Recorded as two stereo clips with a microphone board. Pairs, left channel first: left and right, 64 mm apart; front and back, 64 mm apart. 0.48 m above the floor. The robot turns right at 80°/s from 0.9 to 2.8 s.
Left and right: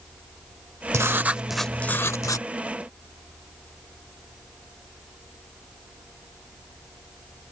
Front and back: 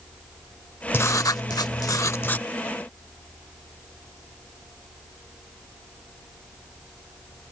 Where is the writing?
50° right; by 2.5 s 75° left.